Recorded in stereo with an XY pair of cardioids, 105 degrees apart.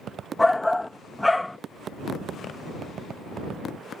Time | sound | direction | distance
0.4 | a shout | 10° left | ?